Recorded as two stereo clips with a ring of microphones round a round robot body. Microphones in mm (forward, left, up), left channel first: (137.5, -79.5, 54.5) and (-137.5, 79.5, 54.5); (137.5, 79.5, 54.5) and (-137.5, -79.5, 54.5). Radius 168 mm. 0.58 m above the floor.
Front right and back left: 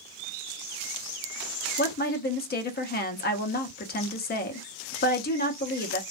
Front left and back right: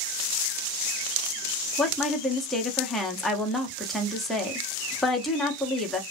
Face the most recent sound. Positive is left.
turn(degrees=-60)